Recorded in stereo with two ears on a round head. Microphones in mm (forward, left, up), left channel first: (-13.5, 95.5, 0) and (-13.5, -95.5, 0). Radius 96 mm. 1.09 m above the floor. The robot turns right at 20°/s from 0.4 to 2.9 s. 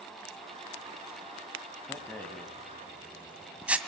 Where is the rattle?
15° left (ahead or behind), 1.9 m; by 3.8 s 5° right (ahead or behind), 1.9 m.